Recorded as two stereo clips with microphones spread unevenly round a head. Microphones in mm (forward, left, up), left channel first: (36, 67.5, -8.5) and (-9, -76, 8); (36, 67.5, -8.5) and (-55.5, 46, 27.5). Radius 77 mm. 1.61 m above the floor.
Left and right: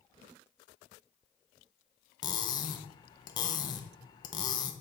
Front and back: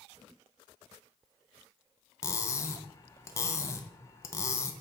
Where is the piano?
I don't hear a piano.